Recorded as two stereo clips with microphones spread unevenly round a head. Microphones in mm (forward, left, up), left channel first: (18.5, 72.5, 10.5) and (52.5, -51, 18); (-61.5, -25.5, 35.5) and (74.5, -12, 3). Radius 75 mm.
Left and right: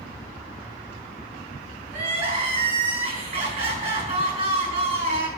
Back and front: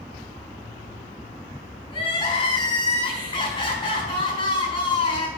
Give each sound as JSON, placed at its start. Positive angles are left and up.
{"t": 1.9, "sound": "crying", "azimuth_deg": -125, "distance_m": 4.5}